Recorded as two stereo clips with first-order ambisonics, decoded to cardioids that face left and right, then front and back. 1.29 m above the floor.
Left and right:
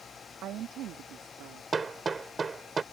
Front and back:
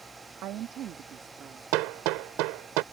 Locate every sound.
0.4 s a woman speaking: 140° right; by 1.6 s 120° right
1.7 s hammering: 165° right